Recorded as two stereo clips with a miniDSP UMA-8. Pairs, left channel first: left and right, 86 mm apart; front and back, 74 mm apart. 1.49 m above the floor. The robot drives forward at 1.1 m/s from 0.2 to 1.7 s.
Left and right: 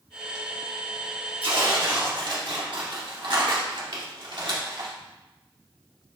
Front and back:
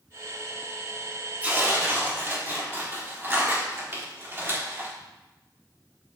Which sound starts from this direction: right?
Tearing paper, at 1.4 s.